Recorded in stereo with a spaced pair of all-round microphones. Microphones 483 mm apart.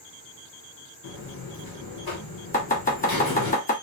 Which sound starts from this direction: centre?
Chopping, at 2.5 s.